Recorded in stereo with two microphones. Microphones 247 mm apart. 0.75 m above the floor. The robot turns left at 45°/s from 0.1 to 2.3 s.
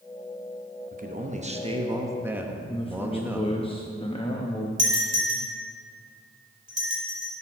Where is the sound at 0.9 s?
105° right, 0.8 m; by 3.5 s 165° right, 0.8 m.